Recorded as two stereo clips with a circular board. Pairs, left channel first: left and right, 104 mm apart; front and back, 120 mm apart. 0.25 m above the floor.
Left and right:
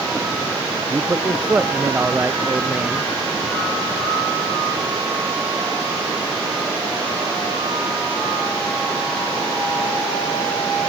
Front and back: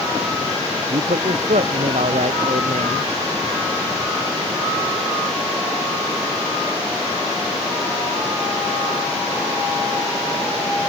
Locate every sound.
0.9 s a man speaking: 165° right